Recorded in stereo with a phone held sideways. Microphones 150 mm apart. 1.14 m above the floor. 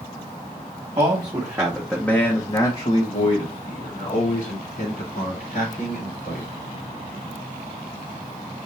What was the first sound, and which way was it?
A man speaking, 30° right (ahead or behind).